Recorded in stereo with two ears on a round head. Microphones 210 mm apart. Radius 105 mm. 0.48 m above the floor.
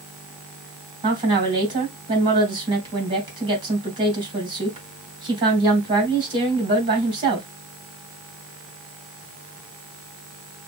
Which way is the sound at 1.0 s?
20° right (ahead or behind).